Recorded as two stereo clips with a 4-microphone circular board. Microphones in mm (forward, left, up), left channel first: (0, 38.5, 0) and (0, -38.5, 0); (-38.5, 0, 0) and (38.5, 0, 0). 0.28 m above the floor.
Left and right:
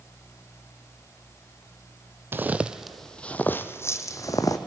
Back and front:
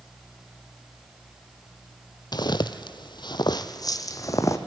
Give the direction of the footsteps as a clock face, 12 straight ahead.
5 o'clock.